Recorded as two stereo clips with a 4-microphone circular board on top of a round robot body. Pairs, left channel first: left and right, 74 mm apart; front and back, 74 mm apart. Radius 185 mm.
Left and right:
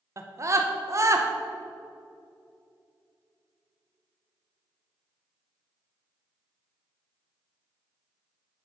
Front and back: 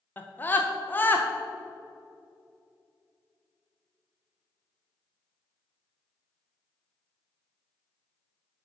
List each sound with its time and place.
0.2 s a scream: 55° right, 1.2 m